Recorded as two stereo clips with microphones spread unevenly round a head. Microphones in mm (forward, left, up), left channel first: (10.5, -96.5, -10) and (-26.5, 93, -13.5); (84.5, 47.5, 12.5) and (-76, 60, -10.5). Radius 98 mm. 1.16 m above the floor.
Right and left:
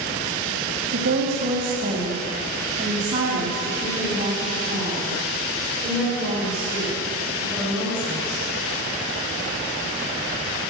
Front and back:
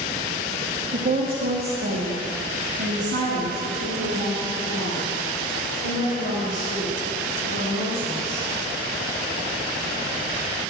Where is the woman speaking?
135° left, 1.4 m; by 8.4 s 165° right, 5 m.